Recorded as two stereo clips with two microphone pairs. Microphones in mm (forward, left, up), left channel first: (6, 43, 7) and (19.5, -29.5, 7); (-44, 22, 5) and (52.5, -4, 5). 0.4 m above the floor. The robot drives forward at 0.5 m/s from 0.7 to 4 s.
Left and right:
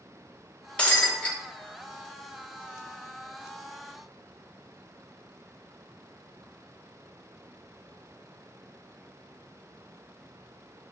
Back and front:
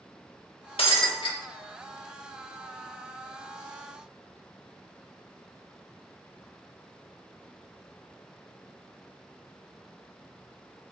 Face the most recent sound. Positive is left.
turn(degrees=180)